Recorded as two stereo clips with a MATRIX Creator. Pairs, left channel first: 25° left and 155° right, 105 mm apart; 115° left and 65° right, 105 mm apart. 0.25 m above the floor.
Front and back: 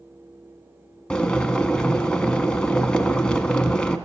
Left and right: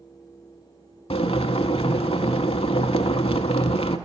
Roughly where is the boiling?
Left.